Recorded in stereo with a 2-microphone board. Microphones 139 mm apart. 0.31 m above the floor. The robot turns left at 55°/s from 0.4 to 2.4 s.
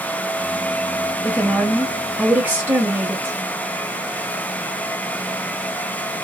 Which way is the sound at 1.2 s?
15° left (ahead or behind).